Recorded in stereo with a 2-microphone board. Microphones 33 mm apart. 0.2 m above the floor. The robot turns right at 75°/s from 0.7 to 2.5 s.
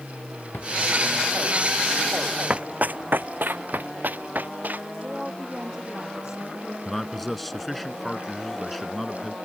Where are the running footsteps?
35° right (ahead or behind); by 4.9 s 60° right (ahead or behind).